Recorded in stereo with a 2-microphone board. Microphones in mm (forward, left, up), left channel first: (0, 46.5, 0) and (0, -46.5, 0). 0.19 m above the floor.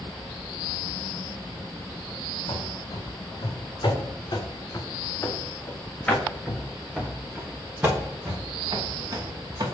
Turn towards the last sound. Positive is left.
turn(degrees=-45)  # may be behind; listen again after turning